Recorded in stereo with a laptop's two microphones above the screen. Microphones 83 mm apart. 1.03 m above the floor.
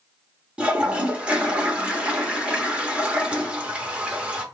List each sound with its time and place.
0.6 s a toilet flushing: 15° right (ahead or behind), 0.9 m